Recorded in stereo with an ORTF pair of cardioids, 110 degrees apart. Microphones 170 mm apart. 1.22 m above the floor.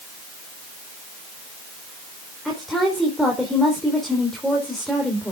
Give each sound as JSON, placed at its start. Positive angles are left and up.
{"t": 2.5, "sound": "a woman speaking", "azimuth_deg": 0, "distance_m": 4.0}